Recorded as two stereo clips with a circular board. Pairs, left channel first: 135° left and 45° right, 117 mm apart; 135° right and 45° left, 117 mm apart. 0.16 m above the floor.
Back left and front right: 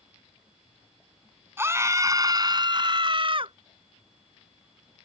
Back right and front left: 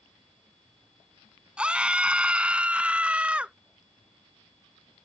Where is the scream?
20° right; by 3.5 s 30° right.